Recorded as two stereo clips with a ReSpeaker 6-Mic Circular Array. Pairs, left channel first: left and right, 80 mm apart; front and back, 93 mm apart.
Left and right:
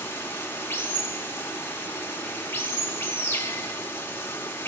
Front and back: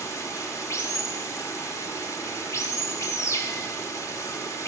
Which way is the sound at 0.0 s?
40° left.